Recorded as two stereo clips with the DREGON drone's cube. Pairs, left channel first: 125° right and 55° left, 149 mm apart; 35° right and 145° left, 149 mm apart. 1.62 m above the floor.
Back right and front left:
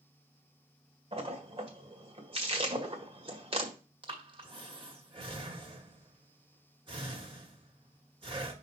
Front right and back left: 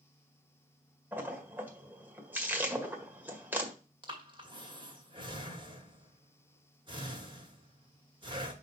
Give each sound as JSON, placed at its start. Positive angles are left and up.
{"t": 1.1, "sound": "a splash", "azimuth_deg": 75, "distance_m": 1.6}
{"t": 4.0, "sound": "breathing", "azimuth_deg": 100, "distance_m": 1.8}